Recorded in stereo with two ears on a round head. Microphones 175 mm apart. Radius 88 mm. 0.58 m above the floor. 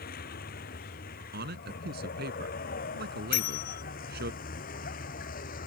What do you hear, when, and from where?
0.0 s a vehicle: 50° left (ahead or behind); by 5.7 s 45° left (ahead or behind)
1.3 s a man speaking: 55° right (ahead or behind)
3.3 s a bell: 45° left (ahead or behind)